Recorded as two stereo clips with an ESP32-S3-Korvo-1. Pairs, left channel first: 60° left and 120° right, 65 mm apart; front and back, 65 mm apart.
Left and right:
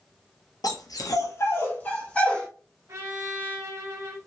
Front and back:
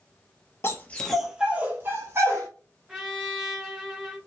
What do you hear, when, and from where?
0.6 s a dog barking: 50° left, 0.9 m; by 2.5 s 135° left, 1.9 m
2.9 s a trumpet: 100° right, 1.3 m